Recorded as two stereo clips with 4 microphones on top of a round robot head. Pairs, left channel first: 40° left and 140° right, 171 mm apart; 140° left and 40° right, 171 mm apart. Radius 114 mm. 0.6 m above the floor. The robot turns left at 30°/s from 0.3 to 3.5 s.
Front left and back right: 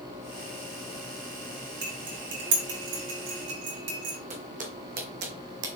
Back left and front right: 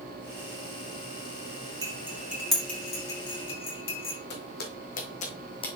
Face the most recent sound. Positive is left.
turn(degrees=-160)